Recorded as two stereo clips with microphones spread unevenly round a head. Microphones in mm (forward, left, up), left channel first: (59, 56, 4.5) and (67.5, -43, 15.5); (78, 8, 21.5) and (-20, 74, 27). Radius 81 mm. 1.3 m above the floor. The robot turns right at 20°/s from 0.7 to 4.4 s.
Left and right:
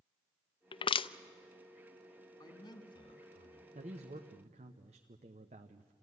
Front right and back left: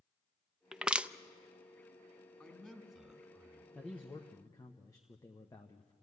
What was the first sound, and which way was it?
Crushing, 65° left.